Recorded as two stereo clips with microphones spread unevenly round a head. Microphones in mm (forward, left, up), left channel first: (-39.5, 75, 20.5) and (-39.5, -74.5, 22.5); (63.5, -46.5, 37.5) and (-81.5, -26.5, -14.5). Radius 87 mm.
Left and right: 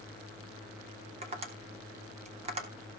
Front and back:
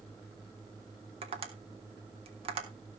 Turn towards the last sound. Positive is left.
turn(degrees=-135)